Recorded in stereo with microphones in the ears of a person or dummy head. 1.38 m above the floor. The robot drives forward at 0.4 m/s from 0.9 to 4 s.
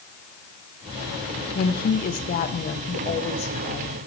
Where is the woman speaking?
50° left (ahead or behind), 1.2 m; by 4.0 s 30° left (ahead or behind), 2 m.